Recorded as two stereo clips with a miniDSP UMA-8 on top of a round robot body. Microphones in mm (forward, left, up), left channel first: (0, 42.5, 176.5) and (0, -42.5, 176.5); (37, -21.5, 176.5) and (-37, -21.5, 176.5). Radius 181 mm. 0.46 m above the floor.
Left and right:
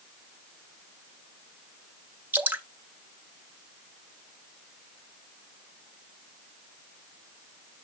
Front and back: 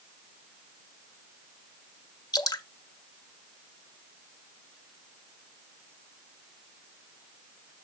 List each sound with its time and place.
2.3 s dripping: 25° right, 1.3 m